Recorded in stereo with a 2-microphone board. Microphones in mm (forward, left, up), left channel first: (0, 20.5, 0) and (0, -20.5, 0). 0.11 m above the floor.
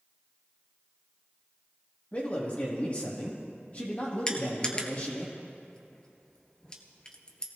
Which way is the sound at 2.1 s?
35° left (ahead or behind).